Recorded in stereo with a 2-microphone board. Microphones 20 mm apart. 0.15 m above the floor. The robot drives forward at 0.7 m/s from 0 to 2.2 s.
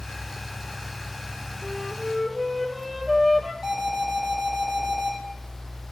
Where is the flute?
10° right (ahead or behind), 1.0 m.